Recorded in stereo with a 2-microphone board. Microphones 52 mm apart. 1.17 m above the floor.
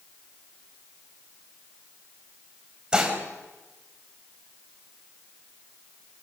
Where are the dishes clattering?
15° right (ahead or behind), 4.5 m.